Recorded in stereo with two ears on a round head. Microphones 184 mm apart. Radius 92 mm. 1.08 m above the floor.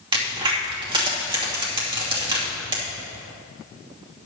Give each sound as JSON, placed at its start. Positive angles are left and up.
{"t": 0.1, "sound": "a crack", "side_deg": -25, "distance_m": 2.5}